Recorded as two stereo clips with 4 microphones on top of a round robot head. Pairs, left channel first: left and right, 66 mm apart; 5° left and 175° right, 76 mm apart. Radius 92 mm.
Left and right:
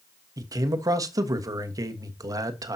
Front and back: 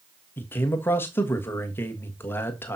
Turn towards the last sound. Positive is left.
turn(degrees=-55)